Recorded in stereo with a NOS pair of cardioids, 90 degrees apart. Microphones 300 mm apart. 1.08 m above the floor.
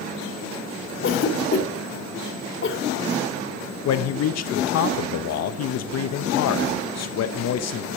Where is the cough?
45° left, 3 m.